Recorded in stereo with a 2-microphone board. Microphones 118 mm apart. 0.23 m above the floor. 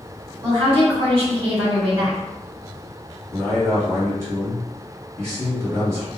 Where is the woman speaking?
50° right (ahead or behind), 1.7 m.